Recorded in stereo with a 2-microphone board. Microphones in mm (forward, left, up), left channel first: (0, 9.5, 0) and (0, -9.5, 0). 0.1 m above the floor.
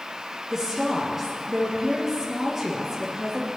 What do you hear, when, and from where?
0.5 s a woman speaking: 15° right (ahead or behind), 2.5 m